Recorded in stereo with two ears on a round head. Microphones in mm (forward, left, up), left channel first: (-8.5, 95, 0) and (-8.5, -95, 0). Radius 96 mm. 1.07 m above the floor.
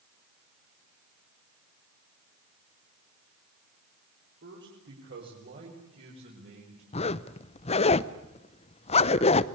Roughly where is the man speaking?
Right.